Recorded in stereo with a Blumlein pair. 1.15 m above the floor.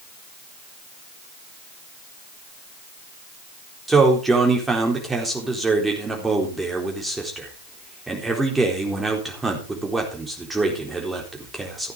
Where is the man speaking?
10° right, 4 m.